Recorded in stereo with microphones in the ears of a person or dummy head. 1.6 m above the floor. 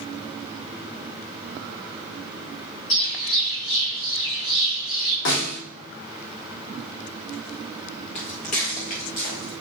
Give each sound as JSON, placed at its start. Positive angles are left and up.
{"t": 2.9, "sound": "a bird", "side_deg": 40, "distance_m": 2.5}
{"t": 5.2, "sound": "a snare drum", "side_deg": 65, "distance_m": 2.5}
{"t": 8.2, "sound": "footsteps", "side_deg": 30, "distance_m": 1.8}